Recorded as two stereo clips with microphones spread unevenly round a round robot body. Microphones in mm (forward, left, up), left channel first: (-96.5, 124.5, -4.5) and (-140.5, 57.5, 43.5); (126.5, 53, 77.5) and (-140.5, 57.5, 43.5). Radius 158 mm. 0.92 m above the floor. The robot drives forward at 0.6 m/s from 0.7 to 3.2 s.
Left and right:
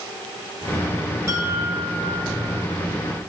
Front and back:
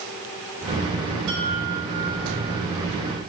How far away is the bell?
About 3.5 m.